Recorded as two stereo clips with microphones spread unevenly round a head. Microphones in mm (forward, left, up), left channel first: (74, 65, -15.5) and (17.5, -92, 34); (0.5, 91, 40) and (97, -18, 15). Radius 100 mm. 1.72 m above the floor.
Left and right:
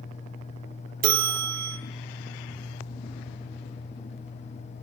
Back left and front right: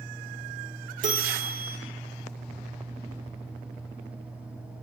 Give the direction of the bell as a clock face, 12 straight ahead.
4 o'clock.